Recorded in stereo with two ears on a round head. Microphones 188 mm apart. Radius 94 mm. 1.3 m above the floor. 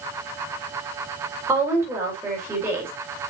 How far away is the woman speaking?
About 4 m.